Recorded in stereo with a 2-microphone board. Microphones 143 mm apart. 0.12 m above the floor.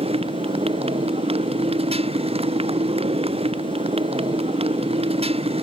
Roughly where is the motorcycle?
Right.